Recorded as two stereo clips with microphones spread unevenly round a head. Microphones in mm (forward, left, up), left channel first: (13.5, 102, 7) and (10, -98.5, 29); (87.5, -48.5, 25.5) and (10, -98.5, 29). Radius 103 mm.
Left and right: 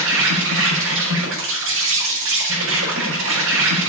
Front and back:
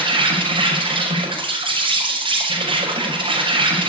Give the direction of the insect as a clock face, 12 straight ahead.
4 o'clock.